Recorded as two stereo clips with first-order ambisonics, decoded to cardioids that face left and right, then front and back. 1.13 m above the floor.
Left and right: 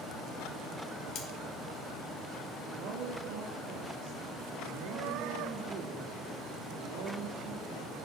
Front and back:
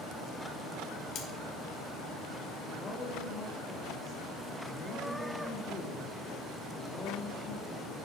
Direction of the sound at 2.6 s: 65° right.